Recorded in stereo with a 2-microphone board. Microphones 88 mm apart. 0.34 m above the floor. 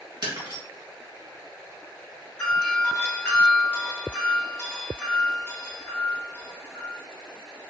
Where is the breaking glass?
60° right (ahead or behind), 1.6 m.